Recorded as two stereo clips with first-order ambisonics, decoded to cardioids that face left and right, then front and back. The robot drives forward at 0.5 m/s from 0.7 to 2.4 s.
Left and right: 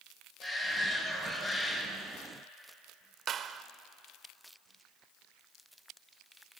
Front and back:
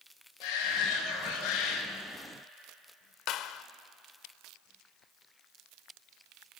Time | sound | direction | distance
0.4 | a shout | 15° left | 7 m
3.3 | a clap | 35° right | 1.0 m